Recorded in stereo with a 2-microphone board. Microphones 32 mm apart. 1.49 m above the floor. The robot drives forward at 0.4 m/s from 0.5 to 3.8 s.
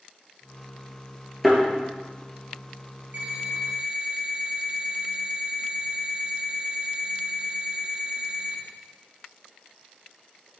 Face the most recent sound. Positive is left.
turn(degrees=-45)  # may be behind; listen again after turning